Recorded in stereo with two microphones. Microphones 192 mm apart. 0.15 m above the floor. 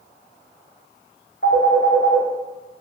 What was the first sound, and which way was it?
A phone ringing, 50° left (ahead or behind).